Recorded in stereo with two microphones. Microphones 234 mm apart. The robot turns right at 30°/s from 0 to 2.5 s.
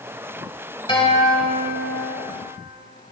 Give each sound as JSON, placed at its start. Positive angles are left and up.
{"t": 0.9, "sound": "a guitar", "azimuth_deg": 25, "distance_m": 1.1}